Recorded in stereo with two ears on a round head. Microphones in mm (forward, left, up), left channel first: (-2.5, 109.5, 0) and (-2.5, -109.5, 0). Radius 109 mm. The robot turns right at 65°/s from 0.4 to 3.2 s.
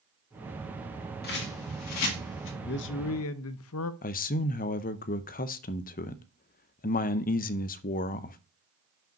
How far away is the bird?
About 1.8 m.